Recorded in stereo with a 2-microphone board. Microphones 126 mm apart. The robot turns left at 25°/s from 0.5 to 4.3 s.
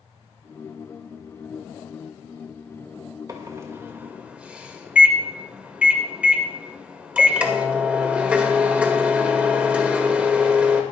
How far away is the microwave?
About 2 m.